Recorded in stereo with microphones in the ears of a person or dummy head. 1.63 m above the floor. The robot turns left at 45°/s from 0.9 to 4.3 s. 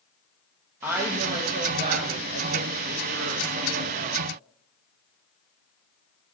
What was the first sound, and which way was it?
A woman speaking, 15° right.